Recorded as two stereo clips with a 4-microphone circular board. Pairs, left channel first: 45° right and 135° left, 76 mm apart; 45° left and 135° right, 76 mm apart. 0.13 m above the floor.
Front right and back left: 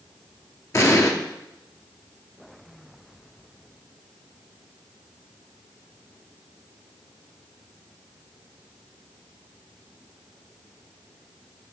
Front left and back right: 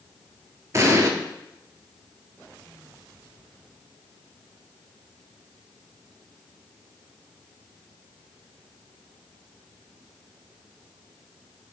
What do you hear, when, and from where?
0.7 s an explosion: 90° right, 0.6 m